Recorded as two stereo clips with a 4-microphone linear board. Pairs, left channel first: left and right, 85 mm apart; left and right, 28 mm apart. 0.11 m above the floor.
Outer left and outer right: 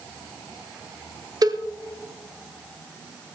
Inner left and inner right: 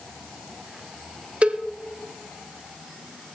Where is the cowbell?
50° right (ahead or behind), 0.9 m.